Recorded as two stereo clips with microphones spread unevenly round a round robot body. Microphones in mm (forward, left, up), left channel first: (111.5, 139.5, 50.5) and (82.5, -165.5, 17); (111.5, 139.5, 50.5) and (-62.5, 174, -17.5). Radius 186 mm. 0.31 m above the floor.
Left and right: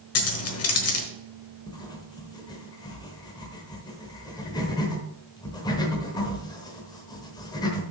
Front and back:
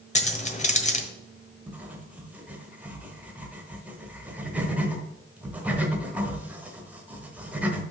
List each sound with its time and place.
0.1 s keys jangling: 50° left, 1.3 m
1.7 s writing: 160° left, 1.0 m